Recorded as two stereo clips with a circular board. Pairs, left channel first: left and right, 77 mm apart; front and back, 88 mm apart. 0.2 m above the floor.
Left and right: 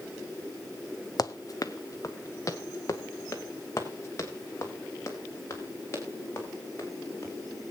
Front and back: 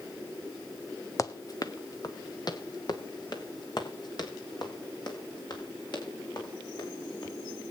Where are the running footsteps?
50° left, 0.7 m; by 7.3 s 35° left, 6 m.